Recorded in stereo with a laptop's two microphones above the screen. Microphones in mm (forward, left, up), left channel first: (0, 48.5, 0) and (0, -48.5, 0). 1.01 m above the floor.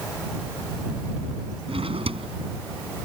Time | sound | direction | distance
1.7 | a drawer | 80° right | ?